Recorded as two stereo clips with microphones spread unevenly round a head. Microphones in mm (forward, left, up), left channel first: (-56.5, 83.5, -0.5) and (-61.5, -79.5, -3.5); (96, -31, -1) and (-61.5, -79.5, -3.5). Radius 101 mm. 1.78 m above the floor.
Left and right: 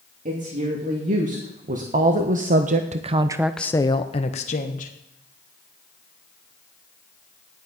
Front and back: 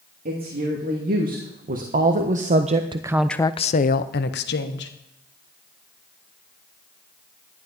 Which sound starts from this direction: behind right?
A woman speaking, at 0.2 s.